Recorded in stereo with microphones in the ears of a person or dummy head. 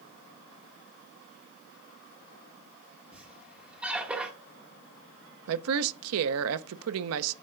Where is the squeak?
5° right (ahead or behind), 1.7 m.